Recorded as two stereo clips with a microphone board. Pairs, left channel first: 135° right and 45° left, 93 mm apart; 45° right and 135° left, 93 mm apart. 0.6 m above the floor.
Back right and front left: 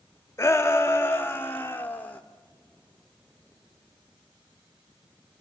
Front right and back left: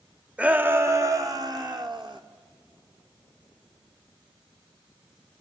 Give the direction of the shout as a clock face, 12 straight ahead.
5 o'clock.